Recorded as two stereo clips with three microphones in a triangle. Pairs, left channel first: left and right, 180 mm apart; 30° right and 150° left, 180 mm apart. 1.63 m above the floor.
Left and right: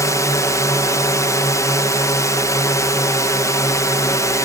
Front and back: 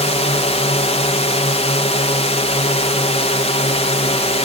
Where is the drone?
20° left.